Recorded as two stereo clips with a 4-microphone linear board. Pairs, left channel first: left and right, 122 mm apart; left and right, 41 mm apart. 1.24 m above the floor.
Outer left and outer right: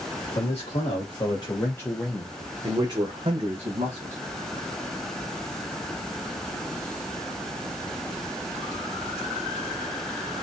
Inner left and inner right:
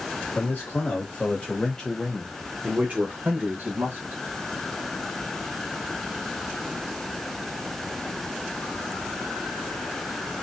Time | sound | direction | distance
0.3 | a man speaking | 55° left (ahead or behind) | 1.6 m